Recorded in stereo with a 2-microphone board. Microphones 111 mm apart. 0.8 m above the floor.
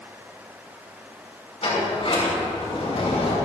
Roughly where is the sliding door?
Left.